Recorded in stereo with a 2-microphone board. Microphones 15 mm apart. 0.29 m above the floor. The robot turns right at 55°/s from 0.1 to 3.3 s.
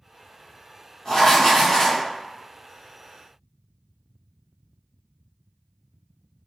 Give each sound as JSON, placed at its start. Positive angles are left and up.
{"t": 1.1, "sound": "writing", "azimuth_deg": 75, "distance_m": 1.6}